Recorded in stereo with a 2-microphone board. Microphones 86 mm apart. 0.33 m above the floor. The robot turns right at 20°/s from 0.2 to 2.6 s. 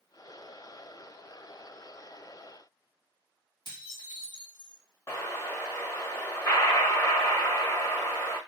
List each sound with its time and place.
3.6 s dishes clattering: 60° left (ahead or behind), 1.6 m
5.1 s an explosion: 35° left (ahead or behind), 1.1 m